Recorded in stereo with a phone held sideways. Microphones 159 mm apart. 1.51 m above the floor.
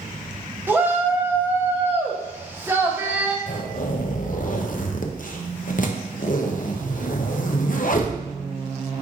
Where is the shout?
15° right (ahead or behind), 1.0 m.